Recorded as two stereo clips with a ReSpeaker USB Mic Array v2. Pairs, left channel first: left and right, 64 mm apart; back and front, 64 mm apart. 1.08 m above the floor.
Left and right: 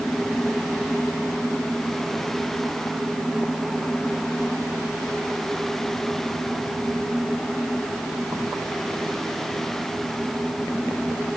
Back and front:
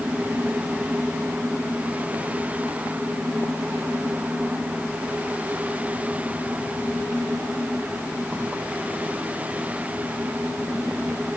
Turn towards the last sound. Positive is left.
No sound to turn to.